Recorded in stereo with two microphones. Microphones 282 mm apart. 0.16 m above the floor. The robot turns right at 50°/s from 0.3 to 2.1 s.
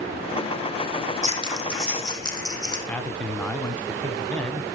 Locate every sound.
1.2 s scissors: 30° right (ahead or behind), 4 m; by 2.8 s 15° left (ahead or behind), 4 m
2.9 s a man speaking: 5° left (ahead or behind), 1.0 m